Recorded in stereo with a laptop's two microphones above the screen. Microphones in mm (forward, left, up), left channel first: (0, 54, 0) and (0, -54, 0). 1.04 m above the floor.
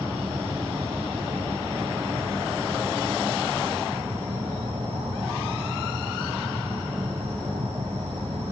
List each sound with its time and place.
0.0 s an insect: 70° right (ahead or behind), 5 m